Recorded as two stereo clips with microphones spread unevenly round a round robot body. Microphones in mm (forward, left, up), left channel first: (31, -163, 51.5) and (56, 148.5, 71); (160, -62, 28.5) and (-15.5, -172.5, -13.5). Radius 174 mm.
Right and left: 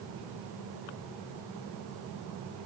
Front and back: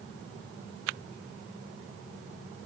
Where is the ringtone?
I don't hear a ringtone.